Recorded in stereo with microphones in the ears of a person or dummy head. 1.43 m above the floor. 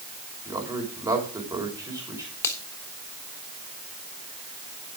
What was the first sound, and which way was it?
A man speaking, 15° right (ahead or behind).